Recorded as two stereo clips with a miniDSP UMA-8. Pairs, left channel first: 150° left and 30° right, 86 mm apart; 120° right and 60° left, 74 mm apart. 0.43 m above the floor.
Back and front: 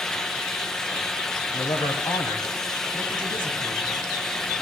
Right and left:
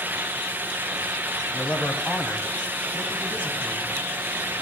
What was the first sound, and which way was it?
A man speaking, 170° left.